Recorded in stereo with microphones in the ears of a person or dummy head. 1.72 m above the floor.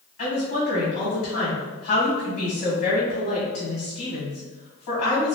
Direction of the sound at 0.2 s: 45° left (ahead or behind).